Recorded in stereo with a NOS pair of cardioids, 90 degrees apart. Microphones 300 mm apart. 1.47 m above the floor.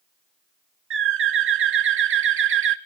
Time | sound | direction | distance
0.9 | a bird | 45° right | 1.3 m